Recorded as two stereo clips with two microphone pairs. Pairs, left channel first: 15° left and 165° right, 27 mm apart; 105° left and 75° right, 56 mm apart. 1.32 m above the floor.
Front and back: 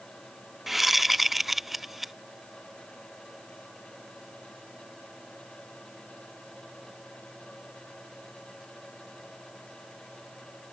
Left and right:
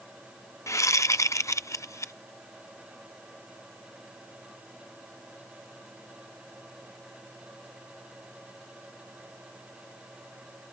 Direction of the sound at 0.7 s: 115° left.